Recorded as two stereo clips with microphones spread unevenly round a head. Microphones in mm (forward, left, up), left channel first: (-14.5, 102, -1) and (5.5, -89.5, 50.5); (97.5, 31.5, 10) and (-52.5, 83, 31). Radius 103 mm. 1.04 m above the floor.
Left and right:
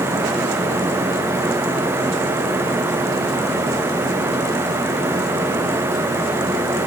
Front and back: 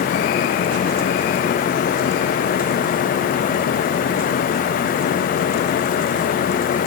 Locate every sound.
Only background noise.